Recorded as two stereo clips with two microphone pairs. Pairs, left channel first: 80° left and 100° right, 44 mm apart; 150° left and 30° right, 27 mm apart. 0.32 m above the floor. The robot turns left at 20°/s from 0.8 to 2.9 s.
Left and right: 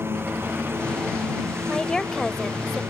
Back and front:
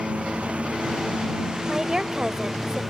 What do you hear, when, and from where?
0.0 s a lawn mower: 70° right; by 2.9 s 110° right
1.7 s a woman speaking: 25° left; by 2.8 s straight ahead